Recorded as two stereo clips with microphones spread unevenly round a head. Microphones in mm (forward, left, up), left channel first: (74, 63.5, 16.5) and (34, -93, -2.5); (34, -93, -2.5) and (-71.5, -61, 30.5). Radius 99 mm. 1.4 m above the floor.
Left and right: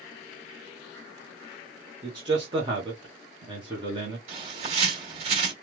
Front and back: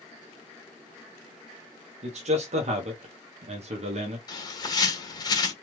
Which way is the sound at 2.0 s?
170° right.